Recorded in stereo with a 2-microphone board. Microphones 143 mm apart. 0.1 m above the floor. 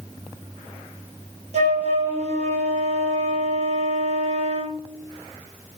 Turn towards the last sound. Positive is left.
turn(degrees=-50)  # may be behind; listen again after turning